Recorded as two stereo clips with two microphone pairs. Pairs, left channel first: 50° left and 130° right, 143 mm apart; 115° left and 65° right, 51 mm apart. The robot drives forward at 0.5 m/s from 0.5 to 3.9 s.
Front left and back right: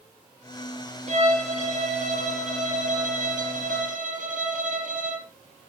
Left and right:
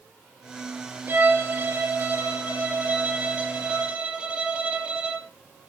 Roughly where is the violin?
Right.